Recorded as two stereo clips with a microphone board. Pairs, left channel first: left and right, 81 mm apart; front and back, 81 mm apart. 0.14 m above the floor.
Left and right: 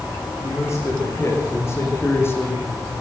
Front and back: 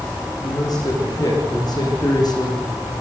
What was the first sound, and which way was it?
A man speaking, 35° left.